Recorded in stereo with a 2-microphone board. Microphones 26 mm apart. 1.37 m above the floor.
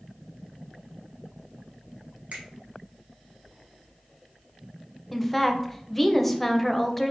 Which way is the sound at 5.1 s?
10° left (ahead or behind).